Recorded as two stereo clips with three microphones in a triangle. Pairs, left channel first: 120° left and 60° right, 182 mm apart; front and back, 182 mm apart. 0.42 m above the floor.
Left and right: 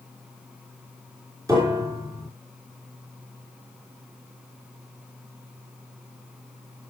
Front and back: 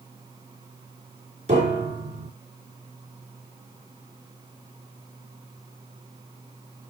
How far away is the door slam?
I don't hear a door slam.